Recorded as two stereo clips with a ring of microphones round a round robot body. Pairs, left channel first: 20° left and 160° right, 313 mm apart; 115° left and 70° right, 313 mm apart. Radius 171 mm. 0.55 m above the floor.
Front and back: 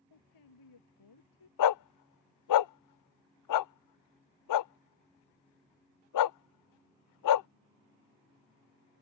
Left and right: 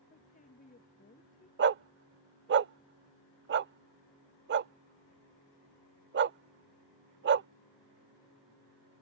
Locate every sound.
0.1 s a woman speaking: 45° left
1.6 s a dog barking: 10° right